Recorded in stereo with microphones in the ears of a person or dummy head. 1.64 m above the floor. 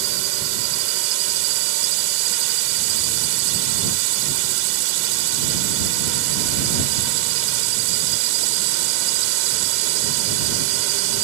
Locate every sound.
0.0 s a drone: 80° right